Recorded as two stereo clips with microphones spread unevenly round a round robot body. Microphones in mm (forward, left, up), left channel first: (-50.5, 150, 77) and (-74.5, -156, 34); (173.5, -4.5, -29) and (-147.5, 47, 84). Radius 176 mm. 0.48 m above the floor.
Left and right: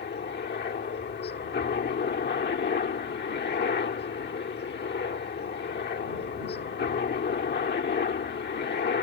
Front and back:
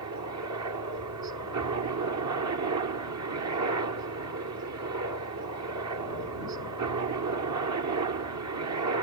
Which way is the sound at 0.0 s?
135° left.